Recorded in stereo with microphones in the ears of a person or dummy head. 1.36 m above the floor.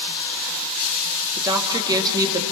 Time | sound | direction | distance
1.4 | a woman speaking | 20° right (ahead or behind) | 2.5 m